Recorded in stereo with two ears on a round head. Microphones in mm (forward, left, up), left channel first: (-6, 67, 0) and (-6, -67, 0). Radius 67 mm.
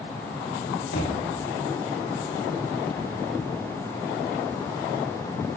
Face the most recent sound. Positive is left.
turn(degrees=85)